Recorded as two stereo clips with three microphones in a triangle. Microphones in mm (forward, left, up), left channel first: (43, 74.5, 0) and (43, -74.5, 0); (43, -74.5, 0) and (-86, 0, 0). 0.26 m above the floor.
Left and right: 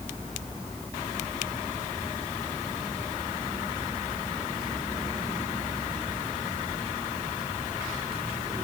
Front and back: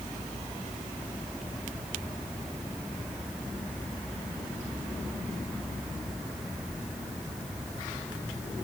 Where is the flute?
No flute in this recording.